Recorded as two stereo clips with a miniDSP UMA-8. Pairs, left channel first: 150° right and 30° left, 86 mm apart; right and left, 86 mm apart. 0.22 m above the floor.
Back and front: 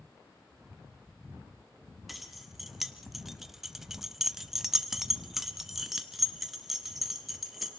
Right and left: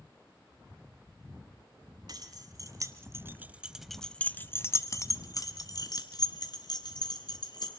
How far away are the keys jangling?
About 1.8 m.